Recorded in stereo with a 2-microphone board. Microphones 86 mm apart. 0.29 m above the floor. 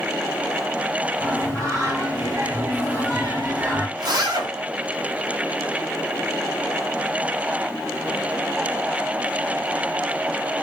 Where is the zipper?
55° right (ahead or behind), 1.1 m.